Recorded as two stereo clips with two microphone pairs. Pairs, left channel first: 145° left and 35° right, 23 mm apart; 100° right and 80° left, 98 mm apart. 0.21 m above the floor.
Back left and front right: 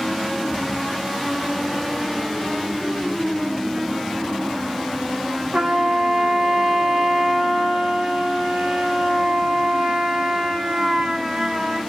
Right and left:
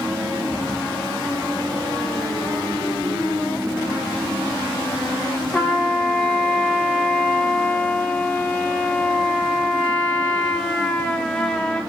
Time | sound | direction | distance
5.5 | a trumpet | 35° right | 0.9 m